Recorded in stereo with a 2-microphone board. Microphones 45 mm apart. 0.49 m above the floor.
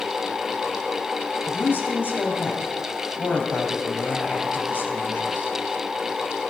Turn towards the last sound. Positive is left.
turn(degrees=50)  # may be behind; listen again after turning